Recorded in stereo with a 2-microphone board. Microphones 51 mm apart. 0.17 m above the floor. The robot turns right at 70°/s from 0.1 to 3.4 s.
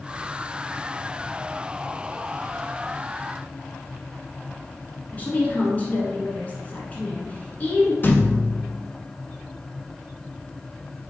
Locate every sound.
5.1 s a woman speaking: 30° left (ahead or behind), 1.7 m
8.0 s a thud: 40° left (ahead or behind), 0.8 m